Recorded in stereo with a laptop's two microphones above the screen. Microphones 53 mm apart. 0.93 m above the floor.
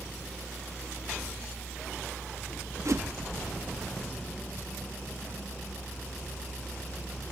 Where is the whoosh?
65° right (ahead or behind).